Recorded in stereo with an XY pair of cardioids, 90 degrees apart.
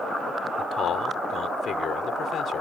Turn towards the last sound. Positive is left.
turn(degrees=70)